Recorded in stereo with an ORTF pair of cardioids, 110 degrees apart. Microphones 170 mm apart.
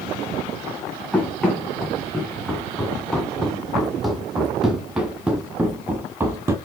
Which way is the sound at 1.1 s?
5° left.